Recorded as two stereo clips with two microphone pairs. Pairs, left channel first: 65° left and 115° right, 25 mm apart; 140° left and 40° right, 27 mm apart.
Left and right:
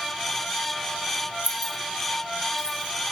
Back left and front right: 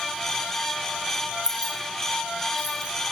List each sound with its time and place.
1.4 s keys jangling: 95° right, 1.9 m; by 2.9 s 50° right, 3 m